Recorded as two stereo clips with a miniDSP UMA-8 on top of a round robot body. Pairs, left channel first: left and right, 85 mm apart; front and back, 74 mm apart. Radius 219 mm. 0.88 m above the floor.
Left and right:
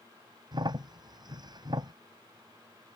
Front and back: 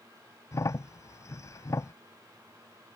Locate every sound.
0.5 s a crack: 50° right